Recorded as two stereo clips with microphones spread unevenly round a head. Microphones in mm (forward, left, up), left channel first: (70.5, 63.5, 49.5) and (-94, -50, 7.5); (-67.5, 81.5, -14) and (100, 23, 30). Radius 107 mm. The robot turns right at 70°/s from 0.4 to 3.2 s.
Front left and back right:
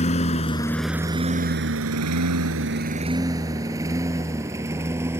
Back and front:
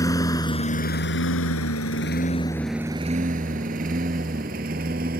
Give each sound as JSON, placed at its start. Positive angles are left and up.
{"t": 0.0, "sound": "a lawn mower", "azimuth_deg": 85}